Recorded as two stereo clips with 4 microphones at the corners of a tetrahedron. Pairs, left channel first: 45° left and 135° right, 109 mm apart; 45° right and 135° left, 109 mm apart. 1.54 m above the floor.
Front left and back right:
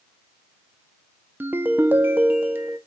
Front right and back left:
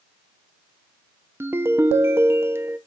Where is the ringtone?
Straight behind, 0.5 m.